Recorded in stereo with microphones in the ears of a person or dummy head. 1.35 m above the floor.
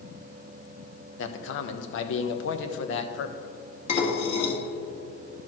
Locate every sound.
1.2 s a man speaking: 80° left, 0.8 m
3.9 s dishes clattering: 40° left (ahead or behind), 1.7 m